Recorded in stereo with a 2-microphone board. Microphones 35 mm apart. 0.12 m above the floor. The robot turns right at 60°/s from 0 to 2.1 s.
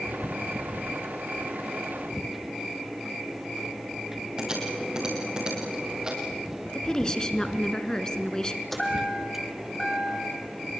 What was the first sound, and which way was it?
Typing on a keyboard, 25° right (ahead or behind).